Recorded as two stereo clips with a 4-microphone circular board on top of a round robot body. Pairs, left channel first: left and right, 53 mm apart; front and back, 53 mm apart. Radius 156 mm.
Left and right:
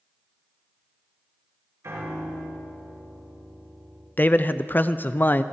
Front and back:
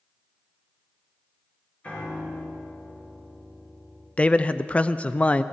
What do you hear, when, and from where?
1.8 s a piano: 60° right, 5.5 m
4.2 s a man speaking: 55° left, 0.7 m